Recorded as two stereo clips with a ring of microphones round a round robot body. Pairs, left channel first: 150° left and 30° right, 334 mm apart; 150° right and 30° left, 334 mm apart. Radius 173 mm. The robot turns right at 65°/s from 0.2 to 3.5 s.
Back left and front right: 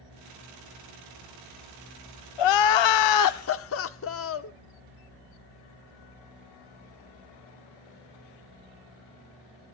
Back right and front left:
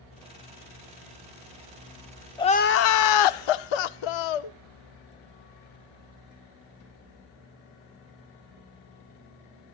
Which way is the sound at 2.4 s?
130° left.